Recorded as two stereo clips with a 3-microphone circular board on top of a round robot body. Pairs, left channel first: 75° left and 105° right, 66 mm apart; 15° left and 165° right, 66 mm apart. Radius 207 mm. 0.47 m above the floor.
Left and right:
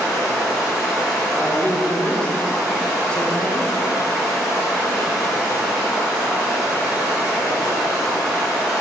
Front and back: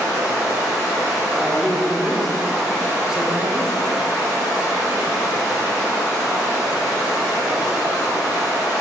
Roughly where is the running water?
Ahead right.